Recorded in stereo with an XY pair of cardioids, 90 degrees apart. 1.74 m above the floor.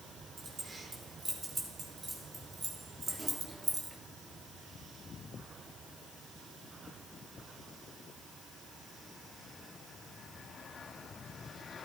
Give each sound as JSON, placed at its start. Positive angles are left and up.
{"t": 0.4, "sound": "keys jangling", "azimuth_deg": -45, "distance_m": 4.5}